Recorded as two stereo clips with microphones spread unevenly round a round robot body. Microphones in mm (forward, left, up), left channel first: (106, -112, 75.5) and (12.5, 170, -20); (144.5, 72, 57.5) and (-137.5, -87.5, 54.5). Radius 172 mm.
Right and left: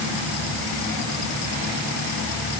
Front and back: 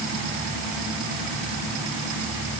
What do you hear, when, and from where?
Only background noise.